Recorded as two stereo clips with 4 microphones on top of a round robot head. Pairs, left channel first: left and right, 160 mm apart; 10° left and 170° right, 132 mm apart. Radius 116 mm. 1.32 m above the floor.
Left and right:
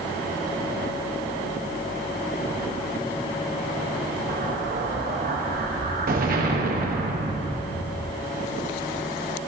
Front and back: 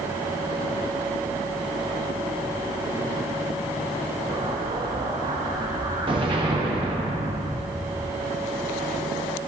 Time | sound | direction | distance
4.3 | an explosion | 115° right | 0.9 m